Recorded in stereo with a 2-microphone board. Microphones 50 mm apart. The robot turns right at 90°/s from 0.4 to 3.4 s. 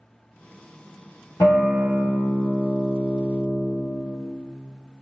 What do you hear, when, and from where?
1.4 s a guitar: 85° left, 1.2 m; by 3.7 s 95° right, 1.2 m